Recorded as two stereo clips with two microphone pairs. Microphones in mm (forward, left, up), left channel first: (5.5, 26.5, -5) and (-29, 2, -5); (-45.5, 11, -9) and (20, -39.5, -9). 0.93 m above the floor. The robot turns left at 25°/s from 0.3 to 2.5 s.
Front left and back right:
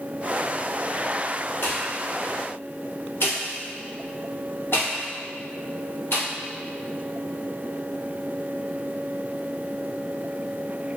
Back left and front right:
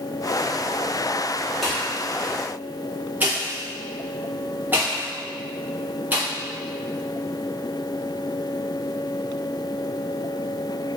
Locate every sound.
1.6 s a pop: 50° left, 1.1 m; by 6.2 s 30° left, 1.1 m